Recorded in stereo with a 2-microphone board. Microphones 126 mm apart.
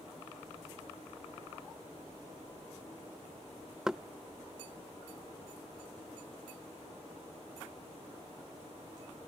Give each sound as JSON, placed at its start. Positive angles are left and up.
{"t": 3.9, "sound": "knocking", "side_deg": -5}